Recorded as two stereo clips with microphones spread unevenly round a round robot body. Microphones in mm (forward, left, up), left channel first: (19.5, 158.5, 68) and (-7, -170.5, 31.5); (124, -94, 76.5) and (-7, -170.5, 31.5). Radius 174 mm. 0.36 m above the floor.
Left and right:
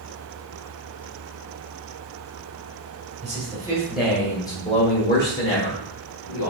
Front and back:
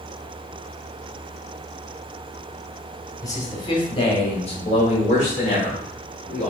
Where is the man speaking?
50° right, 1.4 m; by 6.5 s 75° left, 1.6 m.